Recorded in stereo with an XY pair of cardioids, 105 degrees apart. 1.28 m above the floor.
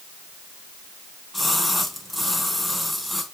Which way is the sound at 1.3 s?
5° left.